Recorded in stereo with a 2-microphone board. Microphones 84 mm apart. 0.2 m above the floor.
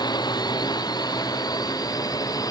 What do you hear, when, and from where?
0.0 s a drone: 55° left (ahead or behind); by 2.5 s 50° left (ahead or behind)